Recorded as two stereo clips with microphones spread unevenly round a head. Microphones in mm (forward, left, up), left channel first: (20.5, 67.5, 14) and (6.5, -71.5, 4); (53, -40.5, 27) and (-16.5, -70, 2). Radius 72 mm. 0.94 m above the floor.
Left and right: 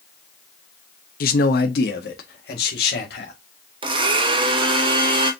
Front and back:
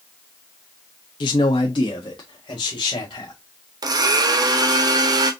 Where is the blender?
150° right, 0.9 m.